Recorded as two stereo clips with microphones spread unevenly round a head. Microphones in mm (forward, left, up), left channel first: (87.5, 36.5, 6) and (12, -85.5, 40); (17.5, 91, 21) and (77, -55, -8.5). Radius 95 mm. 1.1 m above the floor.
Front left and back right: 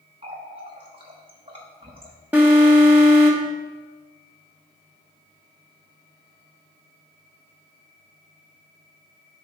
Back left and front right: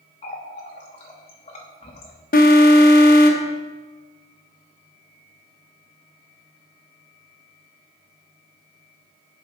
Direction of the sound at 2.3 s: 160° left.